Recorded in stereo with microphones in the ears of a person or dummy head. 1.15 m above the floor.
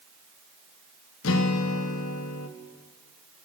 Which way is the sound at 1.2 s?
80° left.